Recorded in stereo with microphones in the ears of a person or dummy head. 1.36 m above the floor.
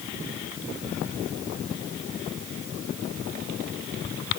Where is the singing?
I don't hear singing.